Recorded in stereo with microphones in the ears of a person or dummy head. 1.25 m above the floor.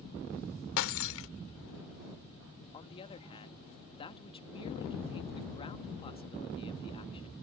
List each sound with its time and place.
0.8 s breaking glass: 80° left
2.7 s a man speaking: 30° left (ahead or behind)